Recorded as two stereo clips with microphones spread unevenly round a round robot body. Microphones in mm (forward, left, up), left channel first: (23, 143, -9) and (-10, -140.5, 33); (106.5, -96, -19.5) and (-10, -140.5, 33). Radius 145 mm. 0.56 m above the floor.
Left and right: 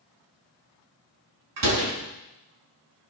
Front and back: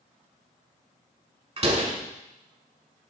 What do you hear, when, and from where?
1.6 s a door slam: 120° right, 5.5 m